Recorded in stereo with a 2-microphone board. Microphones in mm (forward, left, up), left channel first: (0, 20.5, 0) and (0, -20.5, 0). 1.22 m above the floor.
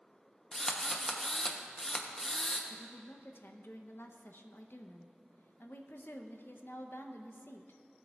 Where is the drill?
15° left (ahead or behind), 0.7 m.